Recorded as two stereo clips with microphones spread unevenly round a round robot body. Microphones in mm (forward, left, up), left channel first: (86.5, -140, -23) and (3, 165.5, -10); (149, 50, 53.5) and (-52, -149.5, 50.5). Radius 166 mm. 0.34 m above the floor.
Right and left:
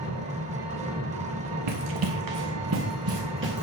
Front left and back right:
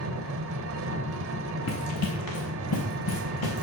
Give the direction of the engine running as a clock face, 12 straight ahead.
6 o'clock.